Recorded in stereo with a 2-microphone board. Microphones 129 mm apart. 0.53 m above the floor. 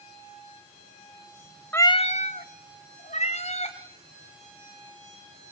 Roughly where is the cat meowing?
Centre.